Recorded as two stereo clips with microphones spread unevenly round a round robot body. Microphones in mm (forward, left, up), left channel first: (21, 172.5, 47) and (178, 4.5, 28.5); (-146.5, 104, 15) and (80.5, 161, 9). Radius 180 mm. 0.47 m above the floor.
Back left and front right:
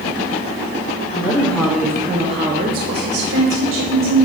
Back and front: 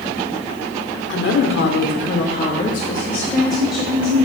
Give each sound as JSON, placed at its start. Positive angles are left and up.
{"t": 1.1, "sound": "a woman speaking", "azimuth_deg": -160, "distance_m": 1.2}